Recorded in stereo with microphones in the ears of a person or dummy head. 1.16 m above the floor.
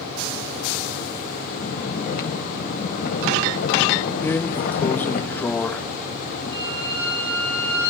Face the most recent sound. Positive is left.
turn(degrees=-35)  # may be behind; listen again after turning